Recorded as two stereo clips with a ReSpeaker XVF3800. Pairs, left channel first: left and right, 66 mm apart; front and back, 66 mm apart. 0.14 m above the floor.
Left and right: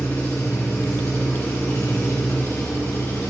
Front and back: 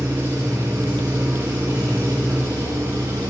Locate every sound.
0.0 s an engine running: 145° left, 6.5 m